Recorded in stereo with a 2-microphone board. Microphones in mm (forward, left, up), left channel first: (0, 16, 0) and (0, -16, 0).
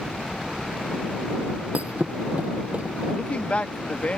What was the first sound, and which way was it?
A helicopter, 65° left (ahead or behind).